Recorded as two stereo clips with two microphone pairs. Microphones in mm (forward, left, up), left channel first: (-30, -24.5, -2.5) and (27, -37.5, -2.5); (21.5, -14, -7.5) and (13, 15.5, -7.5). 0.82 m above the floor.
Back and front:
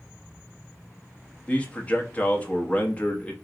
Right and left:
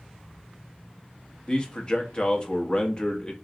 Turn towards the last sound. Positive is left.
turn(degrees=-130)